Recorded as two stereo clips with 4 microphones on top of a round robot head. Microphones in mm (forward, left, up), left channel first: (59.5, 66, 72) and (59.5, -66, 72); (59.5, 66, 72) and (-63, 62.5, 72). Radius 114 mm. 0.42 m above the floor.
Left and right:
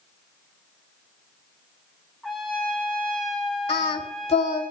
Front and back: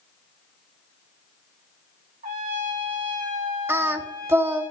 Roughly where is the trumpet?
Behind.